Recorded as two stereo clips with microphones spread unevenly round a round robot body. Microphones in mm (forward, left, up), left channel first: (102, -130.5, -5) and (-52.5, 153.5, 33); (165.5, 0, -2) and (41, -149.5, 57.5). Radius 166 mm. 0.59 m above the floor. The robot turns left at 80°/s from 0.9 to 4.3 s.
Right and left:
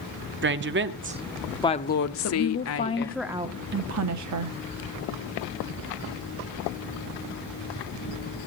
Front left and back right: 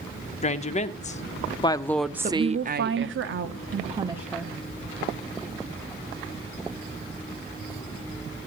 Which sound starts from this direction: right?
A woman speaking, at 2.2 s.